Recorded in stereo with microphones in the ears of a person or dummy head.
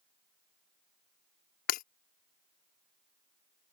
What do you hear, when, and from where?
1.7 s breaking glass: 50° left (ahead or behind)